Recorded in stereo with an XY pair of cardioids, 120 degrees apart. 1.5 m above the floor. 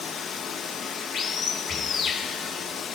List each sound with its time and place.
0.0 s running water: 50° left, 1.2 m
1.7 s breathing: 10° right, 0.7 m